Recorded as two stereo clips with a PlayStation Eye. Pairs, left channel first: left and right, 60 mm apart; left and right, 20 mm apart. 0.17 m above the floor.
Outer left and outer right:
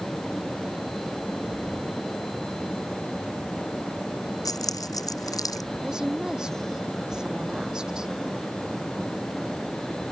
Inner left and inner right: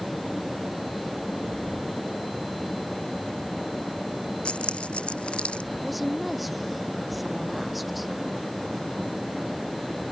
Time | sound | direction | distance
4.5 | keys jangling | 80° left | ?
5.8 | a woman speaking | 10° right (ahead or behind) | ?